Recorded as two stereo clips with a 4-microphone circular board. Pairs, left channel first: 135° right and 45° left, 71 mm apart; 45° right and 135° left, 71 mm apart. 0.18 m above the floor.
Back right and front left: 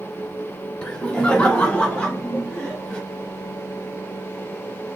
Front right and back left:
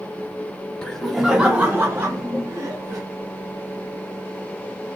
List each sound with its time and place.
0.8 s laughter: 90° right, 1.2 m; by 3.0 s 150° left, 2 m